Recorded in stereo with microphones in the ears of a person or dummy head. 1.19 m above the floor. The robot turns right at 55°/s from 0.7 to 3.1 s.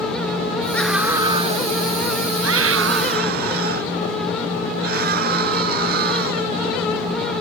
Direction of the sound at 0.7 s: 175° left.